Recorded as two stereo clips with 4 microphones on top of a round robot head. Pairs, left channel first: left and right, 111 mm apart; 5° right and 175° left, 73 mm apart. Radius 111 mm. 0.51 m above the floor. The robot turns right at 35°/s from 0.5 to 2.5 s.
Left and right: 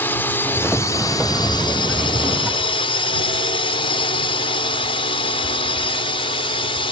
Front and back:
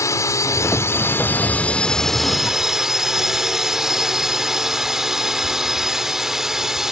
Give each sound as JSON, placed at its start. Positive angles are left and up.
{"t": 0.0, "sound": "a drone", "azimuth_deg": 25}